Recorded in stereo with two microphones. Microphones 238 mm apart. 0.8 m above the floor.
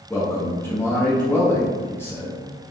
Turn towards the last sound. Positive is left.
turn(degrees=10)  # may be behind; listen again after turning